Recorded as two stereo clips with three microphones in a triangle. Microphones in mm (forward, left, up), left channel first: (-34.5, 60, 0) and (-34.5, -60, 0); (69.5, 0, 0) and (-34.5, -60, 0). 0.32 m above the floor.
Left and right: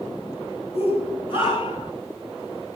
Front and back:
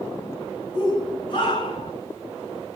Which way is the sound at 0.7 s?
75° left.